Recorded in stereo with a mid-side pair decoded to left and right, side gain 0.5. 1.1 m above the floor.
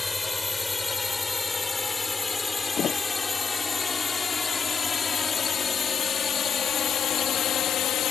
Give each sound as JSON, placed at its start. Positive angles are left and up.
{"t": 0.0, "sound": "a drone", "azimuth_deg": 20}
{"t": 2.8, "sound": "a thud", "azimuth_deg": 55}